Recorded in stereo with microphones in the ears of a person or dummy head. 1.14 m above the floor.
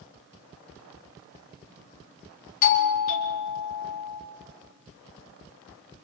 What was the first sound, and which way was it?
A doorbell, 40° left (ahead or behind).